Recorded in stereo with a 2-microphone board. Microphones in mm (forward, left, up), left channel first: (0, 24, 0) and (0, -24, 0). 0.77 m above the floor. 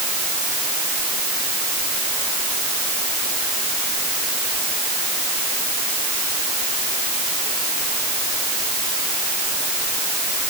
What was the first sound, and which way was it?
Only background noise.